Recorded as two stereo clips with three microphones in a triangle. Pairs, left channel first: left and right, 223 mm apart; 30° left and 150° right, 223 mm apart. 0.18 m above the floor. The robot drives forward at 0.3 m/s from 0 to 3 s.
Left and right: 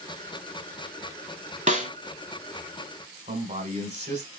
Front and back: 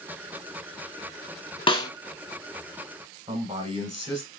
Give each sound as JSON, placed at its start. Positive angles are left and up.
{"t": 1.7, "sound": "a snare drum", "azimuth_deg": -40, "distance_m": 0.6}
{"t": 3.3, "sound": "a man speaking", "azimuth_deg": -110, "distance_m": 1.2}